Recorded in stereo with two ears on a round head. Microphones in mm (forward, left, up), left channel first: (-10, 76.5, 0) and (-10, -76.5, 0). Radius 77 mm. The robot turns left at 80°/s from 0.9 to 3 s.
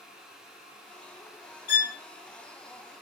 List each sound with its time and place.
1.7 s a violin: 50° left (ahead or behind), 1.5 m; by 1.9 s 65° left (ahead or behind), 1.5 m